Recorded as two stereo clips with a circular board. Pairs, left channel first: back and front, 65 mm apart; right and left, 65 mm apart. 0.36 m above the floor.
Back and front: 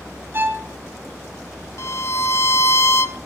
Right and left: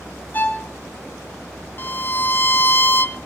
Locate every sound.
0.3 s a violin: 40° right, 3 m
1.8 s a violin: 140° right, 0.7 m